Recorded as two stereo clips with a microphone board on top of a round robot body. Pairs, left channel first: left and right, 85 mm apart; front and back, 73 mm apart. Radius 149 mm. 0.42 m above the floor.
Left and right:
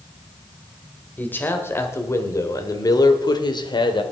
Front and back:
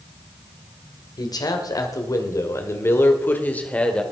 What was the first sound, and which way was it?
A man speaking, 20° left.